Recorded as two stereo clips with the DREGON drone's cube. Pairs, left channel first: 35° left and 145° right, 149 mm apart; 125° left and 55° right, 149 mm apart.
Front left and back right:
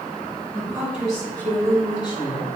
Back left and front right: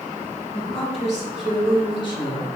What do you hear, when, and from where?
0.5 s a woman speaking: 145° left, 1.5 m; by 2.5 s 70° left, 1.7 m